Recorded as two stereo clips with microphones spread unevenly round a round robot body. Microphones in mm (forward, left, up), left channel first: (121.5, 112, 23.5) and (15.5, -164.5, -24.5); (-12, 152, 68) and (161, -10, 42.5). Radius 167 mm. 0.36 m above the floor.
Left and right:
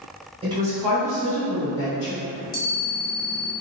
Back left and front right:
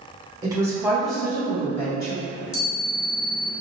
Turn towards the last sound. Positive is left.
turn(degrees=115)